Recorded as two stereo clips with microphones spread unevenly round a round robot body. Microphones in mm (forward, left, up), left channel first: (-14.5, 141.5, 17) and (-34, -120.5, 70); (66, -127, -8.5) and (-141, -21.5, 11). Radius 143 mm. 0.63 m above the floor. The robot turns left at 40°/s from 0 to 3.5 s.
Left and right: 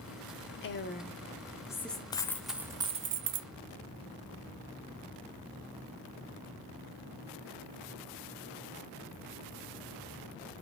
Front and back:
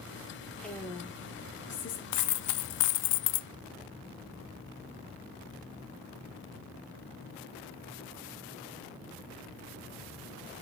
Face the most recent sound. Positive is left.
turn(degrees=-45)